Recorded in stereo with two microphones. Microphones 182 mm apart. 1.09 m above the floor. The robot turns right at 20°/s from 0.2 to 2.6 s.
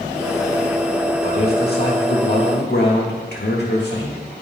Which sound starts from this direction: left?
A man speaking, at 1.2 s.